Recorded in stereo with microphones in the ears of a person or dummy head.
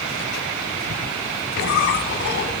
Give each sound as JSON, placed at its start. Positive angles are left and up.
{"t": 1.6, "sound": "a squeak", "side_deg": 55, "distance_m": 3.0}